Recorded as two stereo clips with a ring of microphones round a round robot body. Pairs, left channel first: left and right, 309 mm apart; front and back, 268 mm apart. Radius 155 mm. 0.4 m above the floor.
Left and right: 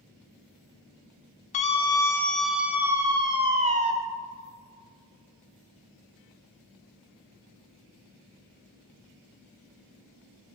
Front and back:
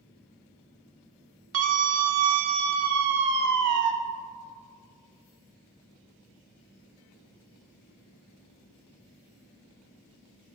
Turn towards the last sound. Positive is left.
turn(degrees=-155)